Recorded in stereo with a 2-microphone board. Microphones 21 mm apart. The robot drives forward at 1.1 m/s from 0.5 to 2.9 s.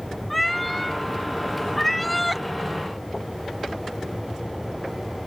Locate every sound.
0.3 s a cat meowing: 10° left (ahead or behind)